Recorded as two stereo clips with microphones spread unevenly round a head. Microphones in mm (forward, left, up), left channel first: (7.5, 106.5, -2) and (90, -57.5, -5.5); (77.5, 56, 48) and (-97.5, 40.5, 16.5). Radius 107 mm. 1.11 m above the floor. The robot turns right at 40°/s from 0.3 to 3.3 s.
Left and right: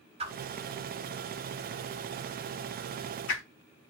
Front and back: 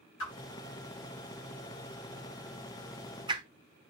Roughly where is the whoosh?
Ahead.